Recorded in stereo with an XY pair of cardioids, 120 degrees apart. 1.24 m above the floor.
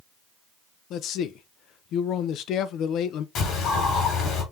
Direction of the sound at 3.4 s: 70° left.